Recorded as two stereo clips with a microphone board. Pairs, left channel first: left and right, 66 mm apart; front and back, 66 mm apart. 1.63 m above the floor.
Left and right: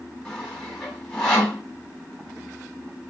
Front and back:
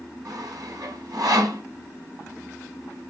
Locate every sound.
0.2 s sawing: 170° left, 3 m